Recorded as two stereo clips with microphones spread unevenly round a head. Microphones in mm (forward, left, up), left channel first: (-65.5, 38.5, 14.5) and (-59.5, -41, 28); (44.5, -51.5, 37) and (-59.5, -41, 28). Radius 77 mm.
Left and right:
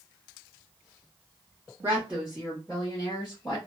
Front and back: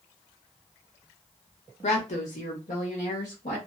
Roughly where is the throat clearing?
No throat clearing in this recording.